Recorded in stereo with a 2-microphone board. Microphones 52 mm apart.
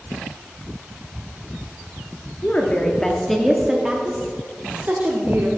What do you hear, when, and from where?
2.4 s a woman speaking: 30° left (ahead or behind), 1.2 m; by 5.5 s 45° right (ahead or behind), 1.6 m